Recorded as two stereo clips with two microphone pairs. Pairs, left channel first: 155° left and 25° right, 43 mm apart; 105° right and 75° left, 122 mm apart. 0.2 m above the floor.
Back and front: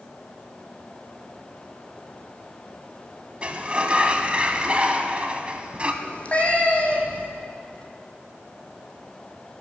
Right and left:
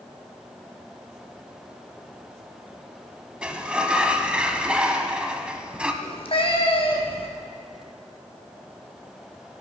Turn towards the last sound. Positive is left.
turn(degrees=-145)